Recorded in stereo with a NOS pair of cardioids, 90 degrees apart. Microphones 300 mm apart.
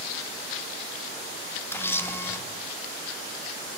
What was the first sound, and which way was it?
A camera shutter, 10° left.